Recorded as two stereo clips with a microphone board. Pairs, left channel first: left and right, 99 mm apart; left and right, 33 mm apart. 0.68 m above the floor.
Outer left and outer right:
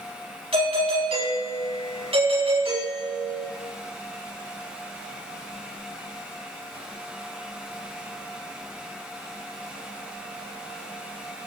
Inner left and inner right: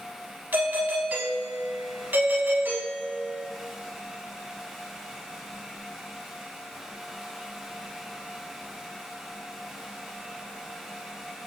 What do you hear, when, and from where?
0.5 s a doorbell: 80° right, 6.5 m